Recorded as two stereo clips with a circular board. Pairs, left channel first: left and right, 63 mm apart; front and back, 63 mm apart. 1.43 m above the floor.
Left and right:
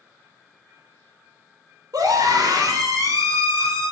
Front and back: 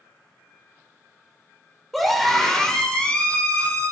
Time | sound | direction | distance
1.9 | a scream | 90° right | 4.5 m